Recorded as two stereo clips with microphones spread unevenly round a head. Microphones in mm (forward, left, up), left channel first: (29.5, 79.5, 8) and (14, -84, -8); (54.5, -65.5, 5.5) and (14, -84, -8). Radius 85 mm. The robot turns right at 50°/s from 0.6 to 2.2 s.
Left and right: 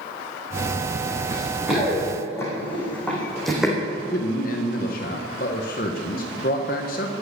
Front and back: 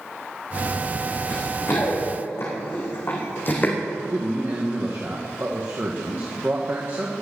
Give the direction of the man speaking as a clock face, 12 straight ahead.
8 o'clock.